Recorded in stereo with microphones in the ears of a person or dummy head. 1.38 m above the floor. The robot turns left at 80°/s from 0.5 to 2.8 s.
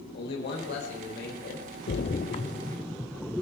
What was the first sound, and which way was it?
A man speaking, 115° left.